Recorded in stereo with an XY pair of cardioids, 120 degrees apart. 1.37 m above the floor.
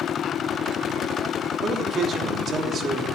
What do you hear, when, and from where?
1.6 s a man speaking: 50° right, 3 m